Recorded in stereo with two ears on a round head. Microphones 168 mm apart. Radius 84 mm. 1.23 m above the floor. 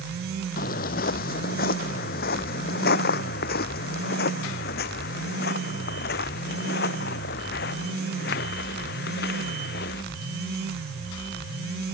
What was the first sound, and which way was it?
Footsteps, 50° left (ahead or behind).